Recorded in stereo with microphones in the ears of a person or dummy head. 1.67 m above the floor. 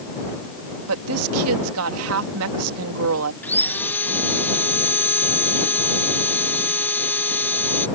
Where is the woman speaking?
75° right (ahead or behind).